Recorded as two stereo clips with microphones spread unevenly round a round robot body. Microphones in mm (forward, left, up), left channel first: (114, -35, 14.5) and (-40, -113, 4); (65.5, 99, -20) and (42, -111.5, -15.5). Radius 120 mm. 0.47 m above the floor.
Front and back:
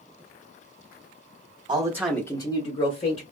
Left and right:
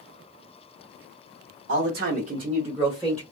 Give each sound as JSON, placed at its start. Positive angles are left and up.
{"t": 1.7, "sound": "a man speaking", "azimuth_deg": -105, "distance_m": 1.0}